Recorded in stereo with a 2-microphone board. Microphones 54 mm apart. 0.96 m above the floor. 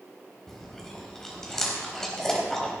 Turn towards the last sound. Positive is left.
turn(degrees=10)  # may be behind; listen again after turning